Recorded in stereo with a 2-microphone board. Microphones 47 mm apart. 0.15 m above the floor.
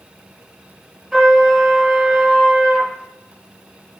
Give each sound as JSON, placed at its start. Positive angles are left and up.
{"t": 1.1, "sound": "a trumpet", "side_deg": -5, "distance_m": 3.5}